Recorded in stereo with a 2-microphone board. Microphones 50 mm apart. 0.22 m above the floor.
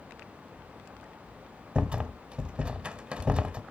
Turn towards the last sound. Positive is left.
turn(degrees=-20)  # may be behind; listen again after turning